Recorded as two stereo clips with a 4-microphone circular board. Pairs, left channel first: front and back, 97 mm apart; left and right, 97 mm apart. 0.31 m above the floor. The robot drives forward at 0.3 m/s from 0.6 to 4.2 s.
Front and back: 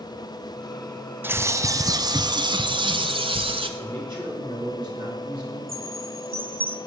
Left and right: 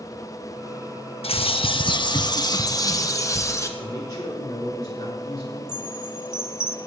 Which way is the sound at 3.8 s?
140° left.